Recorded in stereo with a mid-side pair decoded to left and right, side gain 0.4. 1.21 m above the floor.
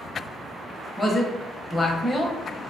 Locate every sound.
1.0 s a man speaking: 25° left, 0.8 m